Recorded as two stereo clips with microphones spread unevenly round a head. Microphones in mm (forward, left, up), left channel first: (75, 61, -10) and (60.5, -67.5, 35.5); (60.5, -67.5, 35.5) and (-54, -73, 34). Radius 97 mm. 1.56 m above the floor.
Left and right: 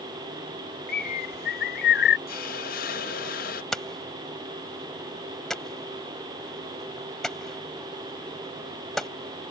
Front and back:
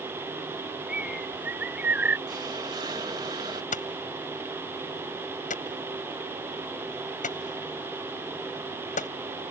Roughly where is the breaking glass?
I don't hear breaking glass.